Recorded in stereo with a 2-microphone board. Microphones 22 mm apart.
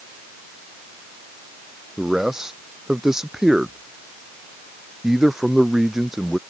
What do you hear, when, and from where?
2.0 s a man speaking: 25° right (ahead or behind)